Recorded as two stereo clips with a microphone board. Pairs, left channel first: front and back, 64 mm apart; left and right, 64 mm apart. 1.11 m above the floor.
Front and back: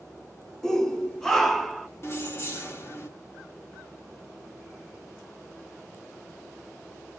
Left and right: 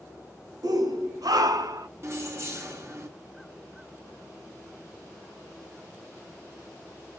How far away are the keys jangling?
About 1.0 m.